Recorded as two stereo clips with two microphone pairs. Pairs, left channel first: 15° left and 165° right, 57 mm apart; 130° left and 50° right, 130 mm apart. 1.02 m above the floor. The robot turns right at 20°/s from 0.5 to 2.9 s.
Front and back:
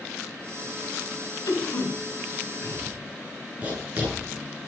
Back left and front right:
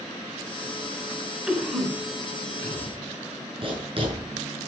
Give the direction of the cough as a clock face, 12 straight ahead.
11 o'clock.